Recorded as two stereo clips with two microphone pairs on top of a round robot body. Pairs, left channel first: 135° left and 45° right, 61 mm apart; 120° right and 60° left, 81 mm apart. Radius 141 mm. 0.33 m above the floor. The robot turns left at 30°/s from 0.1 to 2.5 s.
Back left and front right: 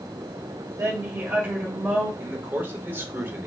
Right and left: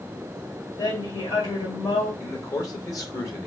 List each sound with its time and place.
0.8 s a woman speaking: 75° right, 2.5 m; by 2.1 s 115° right, 2.5 m
2.2 s a man speaking: 70° right, 1.9 m; by 3.5 s 80° right, 1.9 m